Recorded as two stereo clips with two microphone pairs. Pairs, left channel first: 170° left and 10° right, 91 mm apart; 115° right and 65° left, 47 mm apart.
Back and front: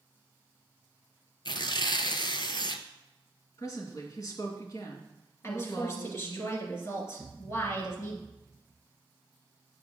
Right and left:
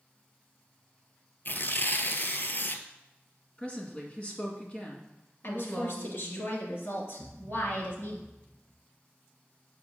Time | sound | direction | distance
1.4 | tearing paper | 160° right | 0.6 m
3.6 | a woman speaking | 165° right | 1.9 m
5.4 | a woman speaking | 135° right | 2.5 m
7.2 | a thud | 155° right | 2.5 m